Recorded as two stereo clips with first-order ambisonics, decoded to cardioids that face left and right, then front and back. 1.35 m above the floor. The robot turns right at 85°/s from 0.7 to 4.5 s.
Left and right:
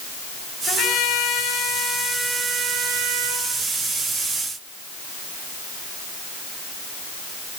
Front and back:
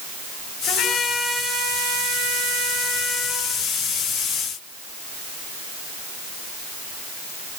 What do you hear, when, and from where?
0.7 s a trumpet: 50° left, 7.5 m; by 3.5 s 75° right, 7.5 m